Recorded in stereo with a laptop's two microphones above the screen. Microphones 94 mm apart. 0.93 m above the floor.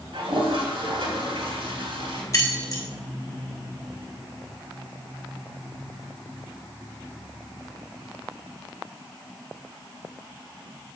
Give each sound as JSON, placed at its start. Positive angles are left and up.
{"t": 0.1, "sound": "a toilet flushing", "side_deg": -70, "distance_m": 2.5}
{"t": 2.3, "sound": "keys jangling", "side_deg": 35, "distance_m": 1.2}